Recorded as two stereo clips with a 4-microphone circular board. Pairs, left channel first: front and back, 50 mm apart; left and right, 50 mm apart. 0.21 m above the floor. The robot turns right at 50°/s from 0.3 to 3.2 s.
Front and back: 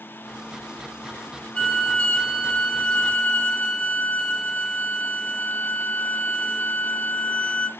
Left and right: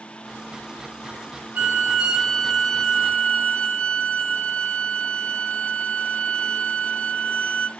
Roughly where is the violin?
Ahead right.